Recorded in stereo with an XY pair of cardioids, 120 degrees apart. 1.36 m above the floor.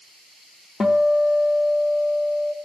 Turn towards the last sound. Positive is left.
turn(degrees=25)